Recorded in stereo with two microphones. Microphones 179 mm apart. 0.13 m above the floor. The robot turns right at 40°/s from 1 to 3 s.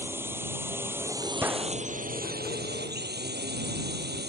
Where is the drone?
165° right; by 4.3 s 85° right.